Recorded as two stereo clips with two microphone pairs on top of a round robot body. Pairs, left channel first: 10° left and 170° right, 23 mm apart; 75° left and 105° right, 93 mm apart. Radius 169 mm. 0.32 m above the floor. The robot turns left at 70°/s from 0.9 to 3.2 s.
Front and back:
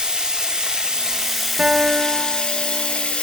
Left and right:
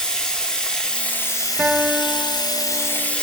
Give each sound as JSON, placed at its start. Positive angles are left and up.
{"t": 0.0, "sound": "running water", "azimuth_deg": 155, "distance_m": 1.3}
{"t": 1.6, "sound": "a guitar", "azimuth_deg": 170, "distance_m": 0.8}